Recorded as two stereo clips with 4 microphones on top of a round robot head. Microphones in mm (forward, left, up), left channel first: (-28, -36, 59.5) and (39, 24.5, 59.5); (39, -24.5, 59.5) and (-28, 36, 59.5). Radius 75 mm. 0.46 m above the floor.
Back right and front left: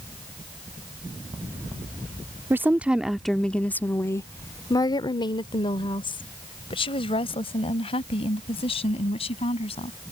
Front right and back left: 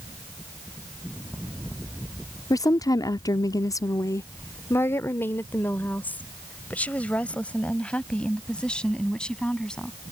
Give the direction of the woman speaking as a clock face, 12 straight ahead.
12 o'clock.